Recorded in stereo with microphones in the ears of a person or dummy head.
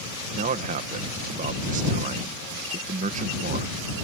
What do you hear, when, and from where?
0.3 s a man speaking: 40° right (ahead or behind)